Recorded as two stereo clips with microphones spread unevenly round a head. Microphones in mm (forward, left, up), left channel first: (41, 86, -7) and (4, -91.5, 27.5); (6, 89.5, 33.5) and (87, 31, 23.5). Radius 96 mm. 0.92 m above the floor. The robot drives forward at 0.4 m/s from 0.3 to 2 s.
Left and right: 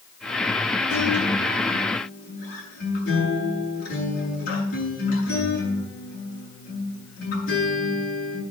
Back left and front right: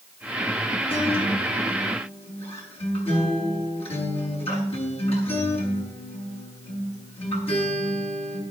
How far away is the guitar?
About 7 m.